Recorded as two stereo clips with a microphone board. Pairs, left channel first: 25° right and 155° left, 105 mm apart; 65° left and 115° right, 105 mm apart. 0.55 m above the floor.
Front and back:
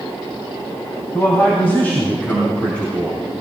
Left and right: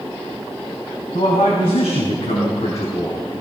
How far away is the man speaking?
About 3 m.